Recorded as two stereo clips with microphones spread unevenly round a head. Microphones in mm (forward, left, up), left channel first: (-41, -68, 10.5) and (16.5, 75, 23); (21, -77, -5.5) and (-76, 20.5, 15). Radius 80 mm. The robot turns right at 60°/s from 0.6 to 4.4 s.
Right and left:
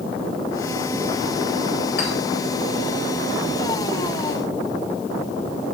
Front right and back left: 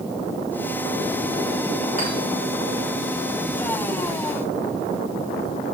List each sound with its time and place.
2.0 s a clink: 85° right, 3.5 m; by 2.1 s 75° right, 3.5 m